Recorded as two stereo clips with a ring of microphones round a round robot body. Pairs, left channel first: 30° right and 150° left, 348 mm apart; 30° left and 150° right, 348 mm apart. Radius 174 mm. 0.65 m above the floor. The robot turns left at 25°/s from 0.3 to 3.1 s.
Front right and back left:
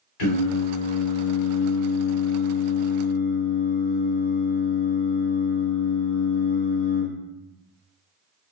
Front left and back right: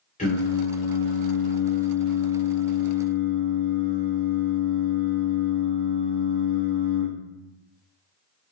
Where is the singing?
40° right, 2.5 m; by 7.1 s 110° right, 2.5 m.